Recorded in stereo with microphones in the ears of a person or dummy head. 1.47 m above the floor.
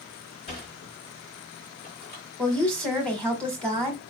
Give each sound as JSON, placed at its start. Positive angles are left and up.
{"t": 0.5, "sound": "a sliding door", "side_deg": 30, "distance_m": 1.6}
{"t": 2.4, "sound": "a woman speaking", "side_deg": 5, "distance_m": 1.5}